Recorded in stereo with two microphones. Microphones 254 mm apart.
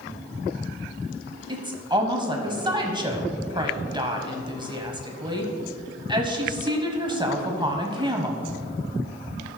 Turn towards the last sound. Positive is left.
turn(degrees=-20)  # may be behind; listen again after turning